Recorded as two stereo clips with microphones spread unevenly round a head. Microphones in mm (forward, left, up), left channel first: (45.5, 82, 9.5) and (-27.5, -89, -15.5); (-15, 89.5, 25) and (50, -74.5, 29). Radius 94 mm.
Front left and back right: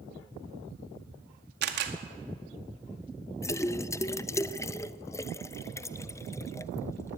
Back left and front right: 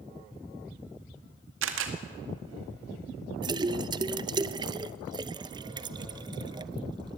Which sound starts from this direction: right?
A camera shutter, at 1.6 s.